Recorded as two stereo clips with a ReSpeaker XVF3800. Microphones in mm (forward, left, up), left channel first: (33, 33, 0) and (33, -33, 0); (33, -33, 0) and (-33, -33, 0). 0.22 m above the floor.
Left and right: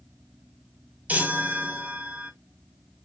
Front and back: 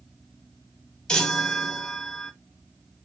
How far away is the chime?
About 0.9 m.